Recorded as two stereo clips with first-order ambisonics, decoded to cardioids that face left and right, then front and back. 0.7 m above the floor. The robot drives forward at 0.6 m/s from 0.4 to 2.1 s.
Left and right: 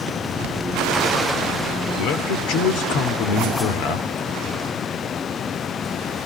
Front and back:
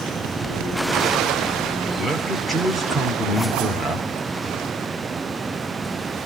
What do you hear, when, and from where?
2.0 s a man speaking: 90° left, 2.5 m